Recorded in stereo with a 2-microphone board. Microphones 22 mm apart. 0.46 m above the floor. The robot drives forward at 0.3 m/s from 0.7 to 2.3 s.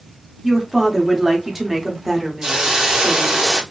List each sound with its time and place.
0.4 s a woman speaking: 10° right (ahead or behind), 0.7 m
2.4 s a hiss: 25° right (ahead or behind), 0.7 m